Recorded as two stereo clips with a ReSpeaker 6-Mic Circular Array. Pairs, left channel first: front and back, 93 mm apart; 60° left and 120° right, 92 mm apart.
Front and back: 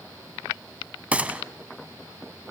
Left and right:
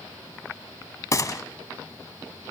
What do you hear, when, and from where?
1.1 s a gunshot: 105° left, 0.6 m